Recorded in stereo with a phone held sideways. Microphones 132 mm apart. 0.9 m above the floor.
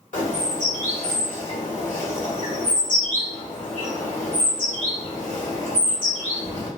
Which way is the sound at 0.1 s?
75° left (ahead or behind).